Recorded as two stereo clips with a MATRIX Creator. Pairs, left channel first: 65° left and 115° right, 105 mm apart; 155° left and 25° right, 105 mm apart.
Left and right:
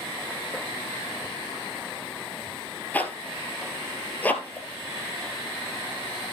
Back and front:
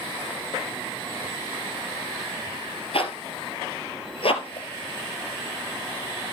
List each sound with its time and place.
2.9 s a zipper: 140° left, 1.4 m